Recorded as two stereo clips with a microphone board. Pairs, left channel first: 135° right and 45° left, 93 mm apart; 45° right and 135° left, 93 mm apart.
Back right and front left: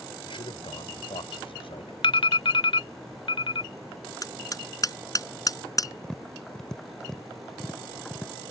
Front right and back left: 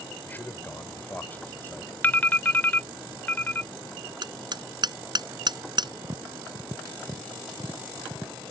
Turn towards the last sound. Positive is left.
turn(degrees=145)